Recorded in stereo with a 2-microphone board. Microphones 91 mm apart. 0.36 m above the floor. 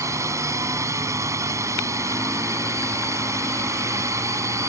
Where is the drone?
35° right (ahead or behind).